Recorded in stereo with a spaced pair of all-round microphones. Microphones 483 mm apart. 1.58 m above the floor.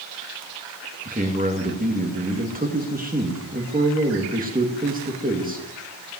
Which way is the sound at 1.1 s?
15° right (ahead or behind).